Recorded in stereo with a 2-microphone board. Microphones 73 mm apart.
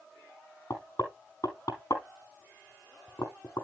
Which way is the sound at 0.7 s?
50° left (ahead or behind).